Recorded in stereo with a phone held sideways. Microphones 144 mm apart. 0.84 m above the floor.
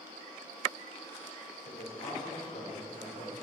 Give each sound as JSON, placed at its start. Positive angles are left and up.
{"t": 1.6, "sound": "a man speaking", "side_deg": 80, "distance_m": 2.0}